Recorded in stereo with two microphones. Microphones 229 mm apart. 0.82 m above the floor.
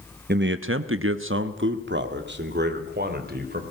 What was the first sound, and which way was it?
A man speaking, 45° right (ahead or behind).